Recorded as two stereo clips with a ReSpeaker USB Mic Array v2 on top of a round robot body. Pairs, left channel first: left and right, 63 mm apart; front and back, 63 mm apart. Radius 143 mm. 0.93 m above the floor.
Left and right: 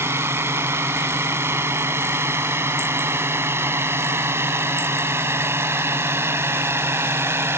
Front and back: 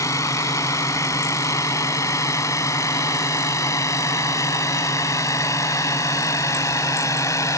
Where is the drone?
35° right.